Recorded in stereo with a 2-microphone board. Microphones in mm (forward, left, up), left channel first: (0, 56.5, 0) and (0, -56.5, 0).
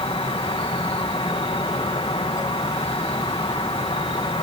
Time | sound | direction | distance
0.0 | an insect | 55° left (ahead or behind) | ?